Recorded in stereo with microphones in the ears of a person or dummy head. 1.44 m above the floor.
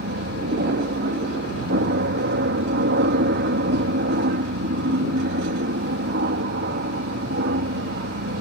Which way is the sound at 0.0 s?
50° right (ahead or behind).